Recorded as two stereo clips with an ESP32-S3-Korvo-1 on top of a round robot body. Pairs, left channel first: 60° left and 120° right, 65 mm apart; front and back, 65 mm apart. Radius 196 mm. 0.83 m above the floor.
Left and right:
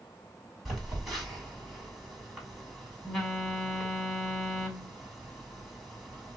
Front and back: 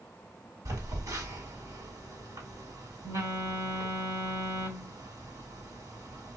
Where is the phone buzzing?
150° left, 2.0 m.